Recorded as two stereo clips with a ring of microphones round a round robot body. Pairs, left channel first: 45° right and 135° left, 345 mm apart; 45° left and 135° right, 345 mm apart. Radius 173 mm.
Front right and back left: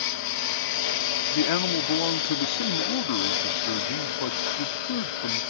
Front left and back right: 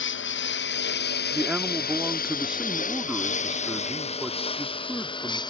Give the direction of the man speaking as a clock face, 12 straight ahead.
2 o'clock.